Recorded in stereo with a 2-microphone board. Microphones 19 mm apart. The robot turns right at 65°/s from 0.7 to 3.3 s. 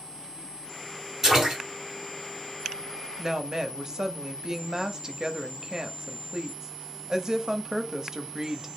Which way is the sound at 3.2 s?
25° right (ahead or behind).